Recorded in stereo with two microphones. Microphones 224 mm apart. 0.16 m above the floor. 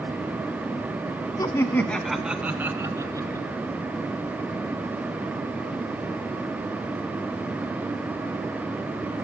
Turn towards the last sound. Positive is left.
turn(degrees=-15)  # may be behind; listen again after turning